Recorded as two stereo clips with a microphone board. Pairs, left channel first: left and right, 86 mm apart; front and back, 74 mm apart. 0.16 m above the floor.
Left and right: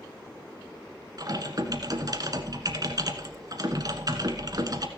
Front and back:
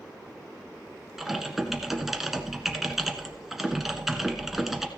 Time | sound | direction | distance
1.2 | typing on a keyboard | 95° right | 1.2 m